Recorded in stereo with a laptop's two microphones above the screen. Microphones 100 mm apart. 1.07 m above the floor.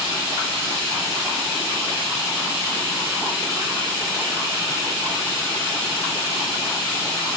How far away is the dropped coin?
No dropped coin in this recording.